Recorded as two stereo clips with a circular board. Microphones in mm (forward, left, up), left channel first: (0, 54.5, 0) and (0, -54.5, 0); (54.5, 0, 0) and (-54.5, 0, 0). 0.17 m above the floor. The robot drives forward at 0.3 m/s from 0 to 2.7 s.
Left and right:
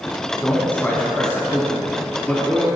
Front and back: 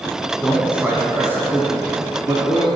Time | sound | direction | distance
0.4 | a man speaking | 110° left | 1.0 m